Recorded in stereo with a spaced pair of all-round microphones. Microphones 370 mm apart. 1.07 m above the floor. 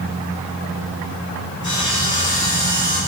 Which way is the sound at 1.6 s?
50° left (ahead or behind).